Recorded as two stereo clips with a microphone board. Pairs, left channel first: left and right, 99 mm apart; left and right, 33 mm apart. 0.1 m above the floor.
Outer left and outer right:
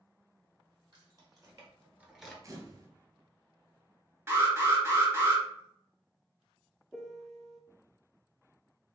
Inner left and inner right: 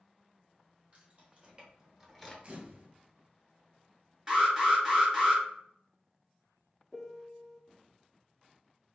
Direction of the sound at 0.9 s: 40° right (ahead or behind).